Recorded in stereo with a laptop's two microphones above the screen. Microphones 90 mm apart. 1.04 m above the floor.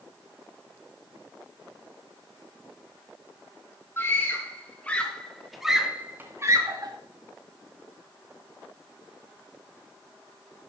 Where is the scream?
30° left (ahead or behind), 4.5 m; by 6.9 s 45° right (ahead or behind), 2.5 m.